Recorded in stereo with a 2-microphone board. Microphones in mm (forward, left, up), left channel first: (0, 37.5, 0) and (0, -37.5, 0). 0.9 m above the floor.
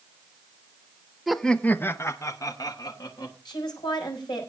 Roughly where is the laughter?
Centre.